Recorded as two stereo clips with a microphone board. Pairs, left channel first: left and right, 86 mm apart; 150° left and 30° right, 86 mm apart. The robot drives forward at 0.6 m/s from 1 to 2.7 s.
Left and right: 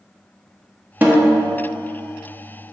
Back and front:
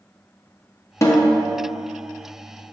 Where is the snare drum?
155° right, 1.2 m; by 1.4 s 160° right, 1.4 m.